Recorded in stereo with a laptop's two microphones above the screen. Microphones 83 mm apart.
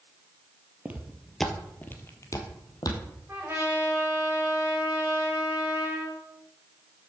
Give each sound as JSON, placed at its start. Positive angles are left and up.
{"t": 0.8, "sound": "footsteps", "side_deg": -20, "distance_m": 1.0}
{"t": 3.3, "sound": "a trumpet", "side_deg": -25, "distance_m": 3.5}